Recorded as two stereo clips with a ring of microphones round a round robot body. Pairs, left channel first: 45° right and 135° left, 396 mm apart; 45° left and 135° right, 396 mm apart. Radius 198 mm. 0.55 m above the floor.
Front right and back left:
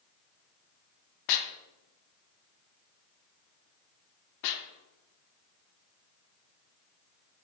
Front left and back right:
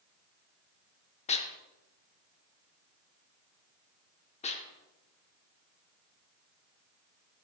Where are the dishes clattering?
25° right, 0.8 m.